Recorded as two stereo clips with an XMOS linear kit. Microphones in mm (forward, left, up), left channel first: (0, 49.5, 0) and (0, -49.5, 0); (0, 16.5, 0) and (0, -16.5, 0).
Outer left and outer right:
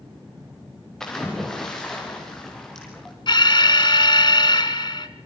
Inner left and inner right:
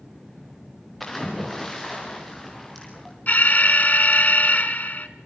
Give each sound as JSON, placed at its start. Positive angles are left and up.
{"t": 1.0, "sound": "a splash", "side_deg": 5, "distance_m": 4.5}
{"t": 3.3, "sound": "an alarm", "side_deg": 55, "distance_m": 1.2}